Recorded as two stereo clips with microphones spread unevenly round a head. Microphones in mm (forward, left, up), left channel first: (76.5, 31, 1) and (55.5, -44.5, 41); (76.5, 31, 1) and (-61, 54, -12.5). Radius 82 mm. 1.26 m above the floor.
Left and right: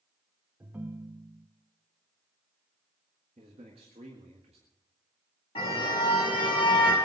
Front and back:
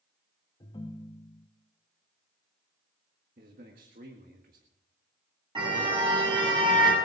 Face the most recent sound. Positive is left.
turn(degrees=115)